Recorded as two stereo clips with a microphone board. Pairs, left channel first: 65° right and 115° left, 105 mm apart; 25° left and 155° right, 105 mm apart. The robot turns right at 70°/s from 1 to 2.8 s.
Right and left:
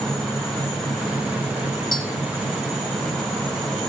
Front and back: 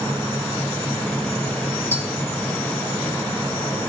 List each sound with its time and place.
1.9 s tapping: 35° right, 2.5 m; by 2.0 s 30° right, 2.5 m